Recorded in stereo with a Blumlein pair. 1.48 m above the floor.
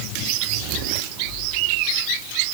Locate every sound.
Only background noise.